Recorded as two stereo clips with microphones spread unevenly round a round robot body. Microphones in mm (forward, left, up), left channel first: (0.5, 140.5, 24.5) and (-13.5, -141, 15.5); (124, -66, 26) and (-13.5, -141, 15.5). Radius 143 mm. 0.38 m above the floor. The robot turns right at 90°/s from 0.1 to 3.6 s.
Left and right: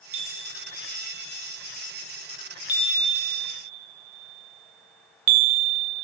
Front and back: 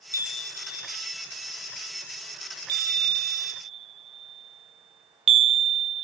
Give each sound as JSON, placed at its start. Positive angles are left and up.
{"t": 0.1, "sound": "a chime", "azimuth_deg": -50, "distance_m": 0.5}